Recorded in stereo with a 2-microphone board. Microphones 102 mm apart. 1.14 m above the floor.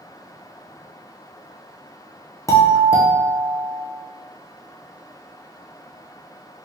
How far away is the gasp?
No gasp in this recording.